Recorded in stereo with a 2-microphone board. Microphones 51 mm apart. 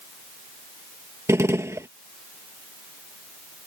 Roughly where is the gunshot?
Right.